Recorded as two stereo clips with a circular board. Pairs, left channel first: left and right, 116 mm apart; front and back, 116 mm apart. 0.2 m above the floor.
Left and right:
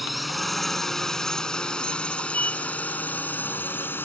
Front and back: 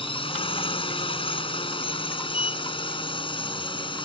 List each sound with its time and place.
0.0 s a drone: straight ahead; by 4.1 s 25° left
2.3 s a sliding door: 15° left